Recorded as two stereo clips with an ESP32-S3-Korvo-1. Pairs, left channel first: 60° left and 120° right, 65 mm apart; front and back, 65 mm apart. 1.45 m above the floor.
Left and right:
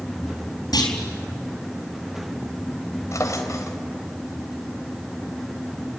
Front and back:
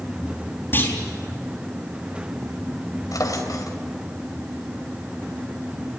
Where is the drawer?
25° left, 3 m.